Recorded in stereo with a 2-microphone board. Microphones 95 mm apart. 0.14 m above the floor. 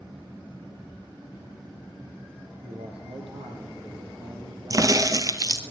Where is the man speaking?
75° right (ahead or behind), 4.5 m; by 5.7 s 80° right, 6.5 m.